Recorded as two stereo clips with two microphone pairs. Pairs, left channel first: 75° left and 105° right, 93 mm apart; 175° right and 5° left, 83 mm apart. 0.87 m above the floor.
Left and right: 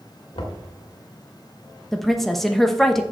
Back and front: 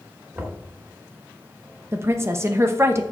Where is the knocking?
70° left, 1.8 m.